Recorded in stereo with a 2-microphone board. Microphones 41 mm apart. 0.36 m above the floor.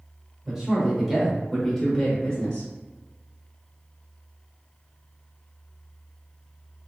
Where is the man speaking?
15° right (ahead or behind), 0.9 m; by 2.7 s 25° left (ahead or behind), 1.1 m.